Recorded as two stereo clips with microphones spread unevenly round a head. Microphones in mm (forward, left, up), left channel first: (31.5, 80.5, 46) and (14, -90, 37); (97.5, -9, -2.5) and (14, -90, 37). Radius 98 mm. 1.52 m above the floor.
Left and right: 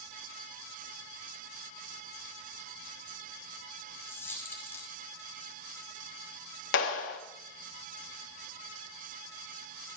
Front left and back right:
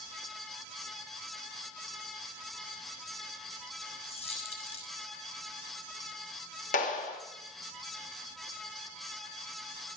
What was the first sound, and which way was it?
A dropped coin, 5° left.